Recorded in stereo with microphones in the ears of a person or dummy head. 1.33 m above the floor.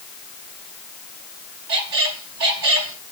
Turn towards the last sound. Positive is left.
turn(degrees=-55)  # may be behind; listen again after turning